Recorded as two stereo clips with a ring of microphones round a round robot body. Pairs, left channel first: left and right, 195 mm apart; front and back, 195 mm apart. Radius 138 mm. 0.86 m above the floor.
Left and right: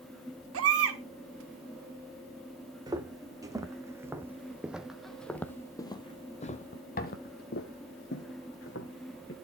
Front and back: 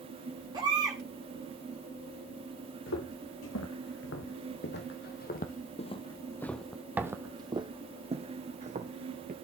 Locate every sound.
0.5 s a baby crying: 105° right, 1.6 m
2.9 s footsteps: 20° right, 2.5 m; by 9.3 s 135° left, 2.5 m